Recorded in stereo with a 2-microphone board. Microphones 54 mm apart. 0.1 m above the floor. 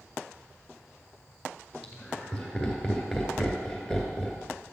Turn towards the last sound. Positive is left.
turn(degrees=-5)  # may be behind; listen again after turning